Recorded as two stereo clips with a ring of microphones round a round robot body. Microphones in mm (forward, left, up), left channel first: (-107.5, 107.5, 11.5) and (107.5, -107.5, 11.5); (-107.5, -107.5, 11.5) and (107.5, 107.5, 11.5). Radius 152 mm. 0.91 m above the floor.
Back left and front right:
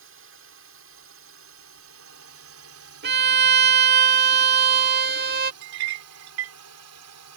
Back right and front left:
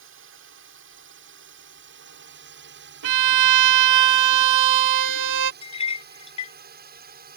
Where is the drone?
Straight ahead; by 7.4 s 15° right.